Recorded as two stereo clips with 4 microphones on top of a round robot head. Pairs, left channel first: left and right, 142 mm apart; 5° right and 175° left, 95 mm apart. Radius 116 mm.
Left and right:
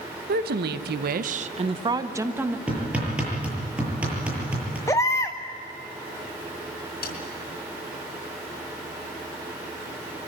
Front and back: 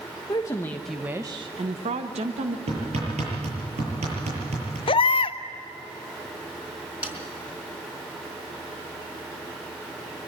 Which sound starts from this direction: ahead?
A baby crying, at 4.9 s.